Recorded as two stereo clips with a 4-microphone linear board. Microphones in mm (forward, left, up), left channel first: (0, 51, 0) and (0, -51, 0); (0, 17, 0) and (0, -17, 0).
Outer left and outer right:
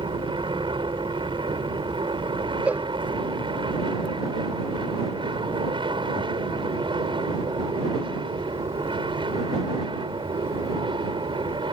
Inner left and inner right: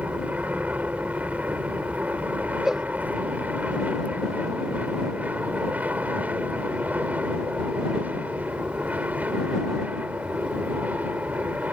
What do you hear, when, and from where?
0.0 s an aircraft: 55° right (ahead or behind)
2.6 s a cowbell: 15° right (ahead or behind)